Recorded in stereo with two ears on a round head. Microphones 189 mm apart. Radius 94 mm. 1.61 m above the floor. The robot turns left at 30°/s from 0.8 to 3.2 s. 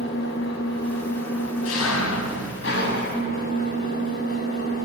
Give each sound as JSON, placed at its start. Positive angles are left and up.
{"t": 0.0, "sound": "an engine running", "azimuth_deg": 120, "distance_m": 7.5}